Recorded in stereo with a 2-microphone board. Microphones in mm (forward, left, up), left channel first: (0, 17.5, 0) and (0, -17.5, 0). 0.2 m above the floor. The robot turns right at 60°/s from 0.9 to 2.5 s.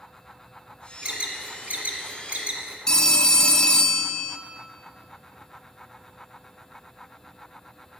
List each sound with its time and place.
1.0 s an alarm: 30° right (ahead or behind), 1.1 m; by 2.8 s 35° right (ahead or behind), 1.1 m
2.9 s a phone ringing: 25° left (ahead or behind), 0.6 m